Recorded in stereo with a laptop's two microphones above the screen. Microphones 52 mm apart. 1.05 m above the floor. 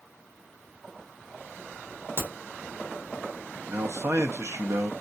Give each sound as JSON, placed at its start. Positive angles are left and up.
{"t": 2.2, "sound": "a crack", "side_deg": -45, "distance_m": 1.2}
{"t": 3.7, "sound": "a man speaking", "side_deg": -55, "distance_m": 0.6}